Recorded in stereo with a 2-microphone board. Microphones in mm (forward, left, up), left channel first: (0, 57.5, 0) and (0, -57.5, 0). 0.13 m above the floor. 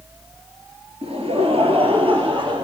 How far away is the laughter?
About 2.5 m.